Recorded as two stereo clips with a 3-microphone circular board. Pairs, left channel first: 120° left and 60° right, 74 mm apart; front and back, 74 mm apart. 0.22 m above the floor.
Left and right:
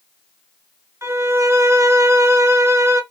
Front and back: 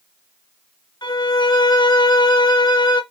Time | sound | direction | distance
1.0 | a violin | 10° right | 0.8 m